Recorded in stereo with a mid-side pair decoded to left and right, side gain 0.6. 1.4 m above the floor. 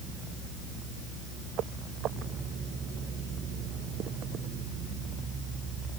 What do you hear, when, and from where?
Only background noise.